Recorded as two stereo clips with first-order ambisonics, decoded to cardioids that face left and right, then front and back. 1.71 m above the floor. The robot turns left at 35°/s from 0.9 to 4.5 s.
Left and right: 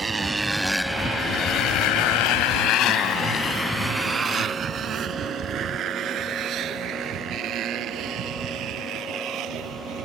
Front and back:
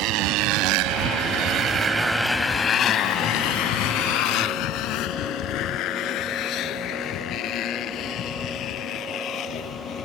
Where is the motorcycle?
160° right; by 10.1 s 50° right.